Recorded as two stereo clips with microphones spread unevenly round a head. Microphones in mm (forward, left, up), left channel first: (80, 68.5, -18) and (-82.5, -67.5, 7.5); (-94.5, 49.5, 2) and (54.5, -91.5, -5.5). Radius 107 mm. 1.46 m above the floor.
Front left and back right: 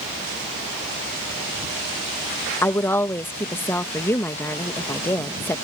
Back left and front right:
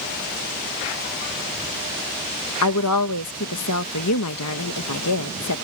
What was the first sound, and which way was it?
A woman speaking, 120° left.